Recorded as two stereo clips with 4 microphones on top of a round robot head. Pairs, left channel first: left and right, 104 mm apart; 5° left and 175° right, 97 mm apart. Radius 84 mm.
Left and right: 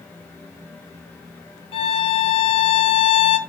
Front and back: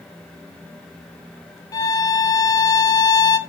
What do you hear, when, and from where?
1.7 s a violin: 60° left, 1.5 m